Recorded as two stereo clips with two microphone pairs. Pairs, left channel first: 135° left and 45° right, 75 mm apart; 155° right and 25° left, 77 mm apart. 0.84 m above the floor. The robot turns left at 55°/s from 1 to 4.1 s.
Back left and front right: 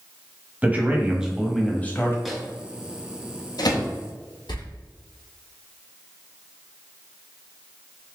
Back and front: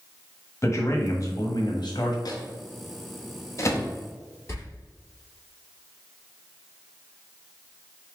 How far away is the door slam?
About 1.3 m.